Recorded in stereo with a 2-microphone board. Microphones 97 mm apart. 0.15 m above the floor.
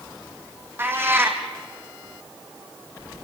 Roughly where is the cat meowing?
Right.